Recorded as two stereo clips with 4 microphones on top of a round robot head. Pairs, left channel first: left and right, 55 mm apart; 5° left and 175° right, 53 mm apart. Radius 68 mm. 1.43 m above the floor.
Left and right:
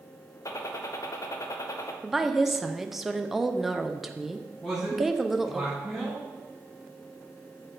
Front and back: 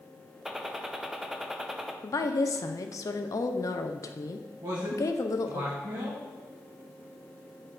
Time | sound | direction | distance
0.5 | a gunshot | 105° left | 0.7 m
2.0 | a woman speaking | 5° right | 0.6 m
4.6 | a man speaking | 175° left | 1.5 m